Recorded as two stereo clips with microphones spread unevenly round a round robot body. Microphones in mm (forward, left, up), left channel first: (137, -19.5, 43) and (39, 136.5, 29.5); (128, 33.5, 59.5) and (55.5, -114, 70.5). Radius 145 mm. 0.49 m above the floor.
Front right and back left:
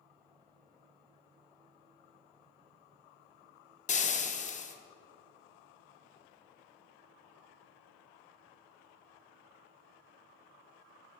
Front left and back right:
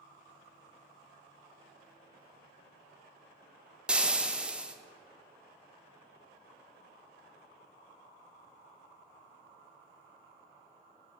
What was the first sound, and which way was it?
Frying, 30° right.